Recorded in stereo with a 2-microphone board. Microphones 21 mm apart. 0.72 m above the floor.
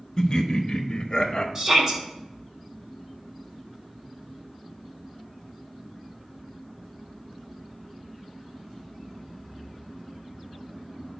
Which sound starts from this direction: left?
Laughter, at 0.2 s.